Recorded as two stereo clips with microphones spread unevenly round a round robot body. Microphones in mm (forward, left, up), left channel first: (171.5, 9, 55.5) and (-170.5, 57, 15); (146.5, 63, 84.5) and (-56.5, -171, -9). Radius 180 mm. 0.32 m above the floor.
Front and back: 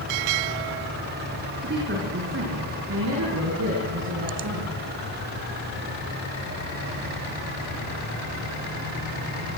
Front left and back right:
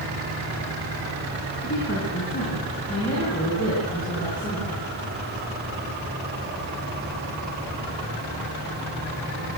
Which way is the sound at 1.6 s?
110° left.